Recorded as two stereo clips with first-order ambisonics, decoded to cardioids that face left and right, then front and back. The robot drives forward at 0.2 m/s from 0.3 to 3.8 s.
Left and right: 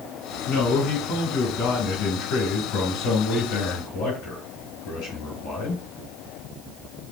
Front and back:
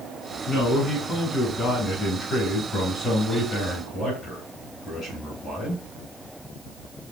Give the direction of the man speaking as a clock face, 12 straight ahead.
10 o'clock.